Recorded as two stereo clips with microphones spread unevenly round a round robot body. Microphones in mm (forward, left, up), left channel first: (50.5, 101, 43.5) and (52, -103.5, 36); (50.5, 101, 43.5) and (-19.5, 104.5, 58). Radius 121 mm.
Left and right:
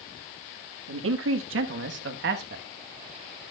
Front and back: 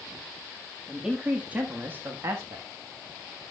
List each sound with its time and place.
0.9 s a man speaking: 95° right, 1.6 m; by 2.6 s 130° right, 1.1 m